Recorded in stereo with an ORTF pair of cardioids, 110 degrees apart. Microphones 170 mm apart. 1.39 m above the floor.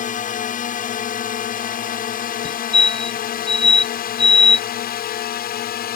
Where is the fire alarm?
35° left.